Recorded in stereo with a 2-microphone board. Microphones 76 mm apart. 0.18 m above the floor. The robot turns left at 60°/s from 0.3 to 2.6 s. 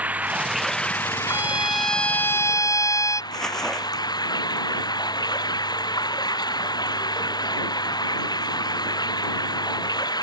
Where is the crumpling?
10° left (ahead or behind).